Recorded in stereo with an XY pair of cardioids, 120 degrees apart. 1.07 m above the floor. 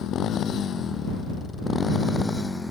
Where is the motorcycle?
55° left; by 2.7 s 10° left.